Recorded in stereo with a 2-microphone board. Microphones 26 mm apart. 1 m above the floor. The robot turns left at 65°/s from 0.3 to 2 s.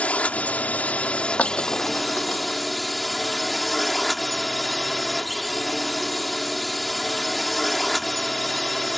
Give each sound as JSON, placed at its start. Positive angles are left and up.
{"t": 0.0, "sound": "a drone", "azimuth_deg": 115}
{"t": 1.4, "sound": "breaking glass", "side_deg": 55}